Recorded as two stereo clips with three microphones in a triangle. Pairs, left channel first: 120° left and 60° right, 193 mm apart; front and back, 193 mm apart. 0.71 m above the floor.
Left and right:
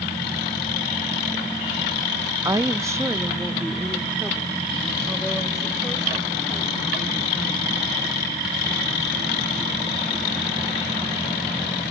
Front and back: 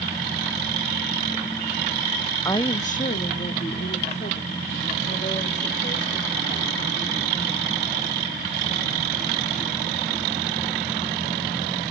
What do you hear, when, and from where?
2.5 s a woman speaking: 35° right, 0.5 m; by 10.6 s 30° left, 6.5 m